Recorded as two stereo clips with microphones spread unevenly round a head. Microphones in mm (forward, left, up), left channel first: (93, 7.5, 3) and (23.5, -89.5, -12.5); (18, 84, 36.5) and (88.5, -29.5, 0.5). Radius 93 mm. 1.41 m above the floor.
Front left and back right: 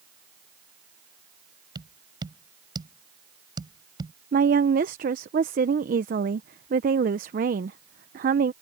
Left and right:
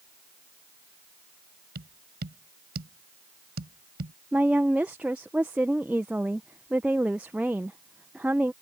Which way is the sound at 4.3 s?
145° right.